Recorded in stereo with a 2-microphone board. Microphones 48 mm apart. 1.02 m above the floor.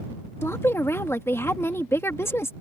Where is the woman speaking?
65° left (ahead or behind).